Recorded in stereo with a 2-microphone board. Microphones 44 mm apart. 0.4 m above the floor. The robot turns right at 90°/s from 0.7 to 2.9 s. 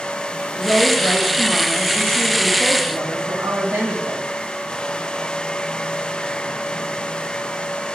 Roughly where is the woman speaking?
Ahead left.